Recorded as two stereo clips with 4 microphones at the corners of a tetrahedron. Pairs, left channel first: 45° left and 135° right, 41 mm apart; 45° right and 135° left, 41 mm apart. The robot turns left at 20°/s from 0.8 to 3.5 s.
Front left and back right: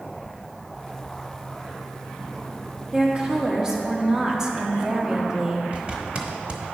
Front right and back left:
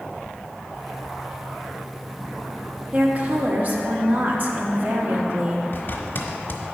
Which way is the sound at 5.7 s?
75° right.